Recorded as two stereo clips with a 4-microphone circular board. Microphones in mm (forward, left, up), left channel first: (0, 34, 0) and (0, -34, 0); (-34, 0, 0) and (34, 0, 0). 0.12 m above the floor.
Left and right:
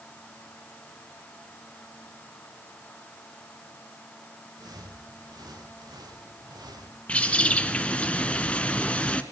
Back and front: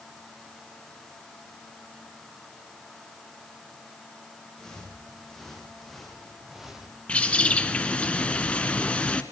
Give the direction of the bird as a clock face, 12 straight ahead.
8 o'clock.